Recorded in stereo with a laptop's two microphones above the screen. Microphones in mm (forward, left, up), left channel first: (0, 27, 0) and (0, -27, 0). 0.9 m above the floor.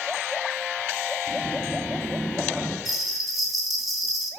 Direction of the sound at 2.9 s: Centre (ahead or behind).